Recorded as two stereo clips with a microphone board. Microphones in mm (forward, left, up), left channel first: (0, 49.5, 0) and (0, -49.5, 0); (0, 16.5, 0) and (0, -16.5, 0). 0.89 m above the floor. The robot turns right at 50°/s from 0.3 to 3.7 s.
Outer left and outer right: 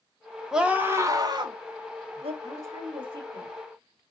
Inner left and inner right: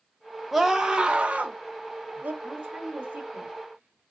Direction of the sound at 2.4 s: 25° right (ahead or behind).